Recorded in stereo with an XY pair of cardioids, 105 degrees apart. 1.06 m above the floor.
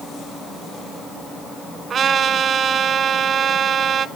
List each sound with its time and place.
1.9 s a trumpet: 55° right, 1.6 m